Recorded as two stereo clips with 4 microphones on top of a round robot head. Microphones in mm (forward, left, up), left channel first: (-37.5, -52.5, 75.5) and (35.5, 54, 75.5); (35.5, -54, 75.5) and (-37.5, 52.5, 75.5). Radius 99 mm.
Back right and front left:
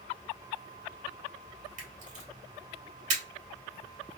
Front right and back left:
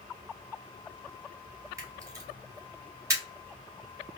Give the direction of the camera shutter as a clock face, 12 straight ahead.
10 o'clock.